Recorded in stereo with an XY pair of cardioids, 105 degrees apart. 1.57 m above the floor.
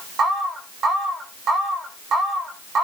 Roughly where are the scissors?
No scissors in this recording.